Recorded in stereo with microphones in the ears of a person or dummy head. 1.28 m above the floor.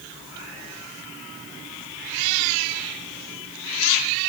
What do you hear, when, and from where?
Only background noise.